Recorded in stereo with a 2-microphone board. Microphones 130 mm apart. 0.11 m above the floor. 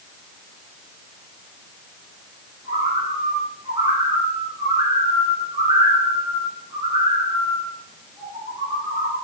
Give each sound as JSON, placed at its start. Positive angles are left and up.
{"t": 2.6, "sound": "a bird", "side_deg": -30, "distance_m": 6.0}